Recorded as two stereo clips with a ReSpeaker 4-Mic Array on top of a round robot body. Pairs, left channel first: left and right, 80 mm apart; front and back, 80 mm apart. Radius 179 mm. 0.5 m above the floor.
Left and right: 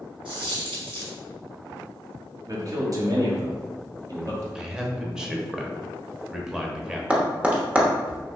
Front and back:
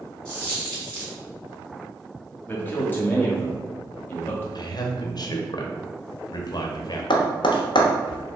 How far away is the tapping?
About 0.8 m.